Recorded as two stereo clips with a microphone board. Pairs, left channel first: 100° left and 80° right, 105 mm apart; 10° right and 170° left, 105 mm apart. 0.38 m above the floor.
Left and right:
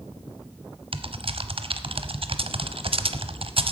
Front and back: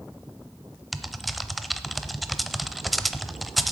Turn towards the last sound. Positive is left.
turn(degrees=-100)